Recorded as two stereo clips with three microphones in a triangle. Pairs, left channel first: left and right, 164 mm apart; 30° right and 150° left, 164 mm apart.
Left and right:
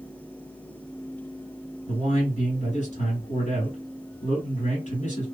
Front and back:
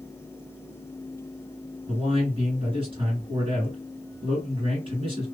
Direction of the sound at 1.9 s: 105° left.